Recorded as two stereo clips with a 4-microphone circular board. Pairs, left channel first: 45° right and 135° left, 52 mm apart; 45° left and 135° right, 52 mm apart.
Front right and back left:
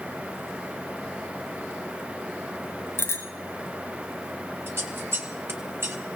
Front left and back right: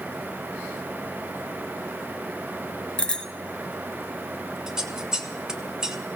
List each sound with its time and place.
3.0 s a bicycle bell: 30° right, 2 m
4.7 s scissors: 150° left, 1.2 m